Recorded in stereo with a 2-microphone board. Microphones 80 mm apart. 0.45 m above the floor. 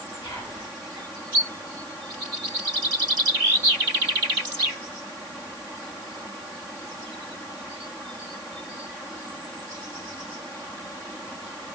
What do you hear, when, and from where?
0.2 s whispering: 65° left (ahead or behind), 5.5 m